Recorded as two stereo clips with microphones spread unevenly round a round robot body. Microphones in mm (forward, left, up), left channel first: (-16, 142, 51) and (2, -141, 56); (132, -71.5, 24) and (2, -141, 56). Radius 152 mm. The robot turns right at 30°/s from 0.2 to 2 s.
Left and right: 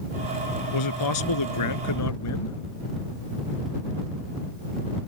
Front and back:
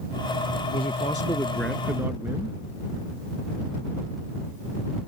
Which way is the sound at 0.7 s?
85° left.